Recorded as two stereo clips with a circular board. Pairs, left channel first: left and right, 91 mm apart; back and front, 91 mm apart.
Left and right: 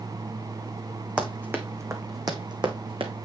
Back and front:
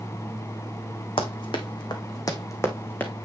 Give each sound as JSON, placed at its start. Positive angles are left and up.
{"t": 1.2, "sound": "running footsteps", "azimuth_deg": -165, "distance_m": 1.7}